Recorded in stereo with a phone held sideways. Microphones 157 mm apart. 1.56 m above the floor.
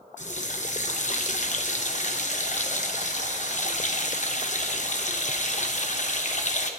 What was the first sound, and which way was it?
A running tap, 50° left (ahead or behind).